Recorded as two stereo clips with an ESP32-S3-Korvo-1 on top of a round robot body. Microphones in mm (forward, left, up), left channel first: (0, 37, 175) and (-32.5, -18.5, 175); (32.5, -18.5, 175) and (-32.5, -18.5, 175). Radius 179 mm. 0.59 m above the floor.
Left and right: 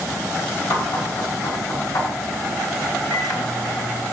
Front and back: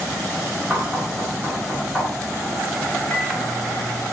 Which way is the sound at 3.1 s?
75° left.